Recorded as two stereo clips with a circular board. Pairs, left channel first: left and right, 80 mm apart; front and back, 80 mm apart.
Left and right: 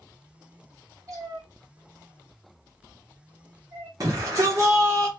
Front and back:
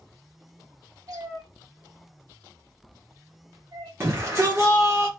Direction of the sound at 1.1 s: 130° right.